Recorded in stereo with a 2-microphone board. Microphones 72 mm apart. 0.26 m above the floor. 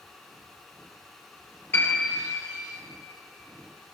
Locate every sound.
1.7 s a piano: 35° left (ahead or behind), 6 m